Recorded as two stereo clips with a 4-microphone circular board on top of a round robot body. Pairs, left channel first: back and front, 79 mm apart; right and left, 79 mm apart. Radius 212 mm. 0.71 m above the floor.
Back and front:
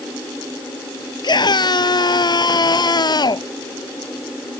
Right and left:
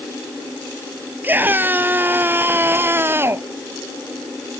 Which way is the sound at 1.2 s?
155° left.